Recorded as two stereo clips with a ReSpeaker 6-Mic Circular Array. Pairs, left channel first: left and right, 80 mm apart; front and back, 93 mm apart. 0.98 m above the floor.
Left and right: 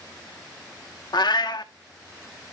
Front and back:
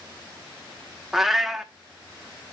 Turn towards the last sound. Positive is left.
turn(degrees=95)